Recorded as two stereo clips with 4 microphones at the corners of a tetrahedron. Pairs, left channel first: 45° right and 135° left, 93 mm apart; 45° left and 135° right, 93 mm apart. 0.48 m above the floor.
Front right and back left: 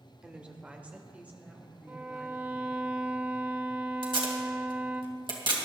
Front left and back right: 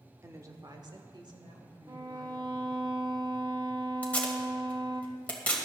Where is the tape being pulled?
120° left, 2.5 m.